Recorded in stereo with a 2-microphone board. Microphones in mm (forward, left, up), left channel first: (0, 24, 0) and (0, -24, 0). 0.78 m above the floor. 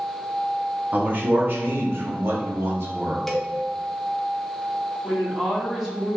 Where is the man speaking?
35° right (ahead or behind), 1.1 m; by 3.2 s 65° right (ahead or behind), 1.9 m.